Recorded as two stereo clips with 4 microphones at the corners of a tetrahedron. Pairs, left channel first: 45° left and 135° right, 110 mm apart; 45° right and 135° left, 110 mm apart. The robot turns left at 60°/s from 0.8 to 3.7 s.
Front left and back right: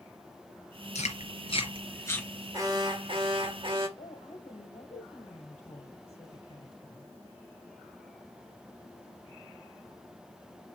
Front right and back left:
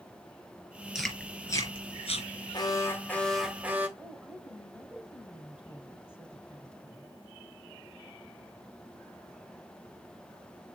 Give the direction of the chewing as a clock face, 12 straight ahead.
10 o'clock.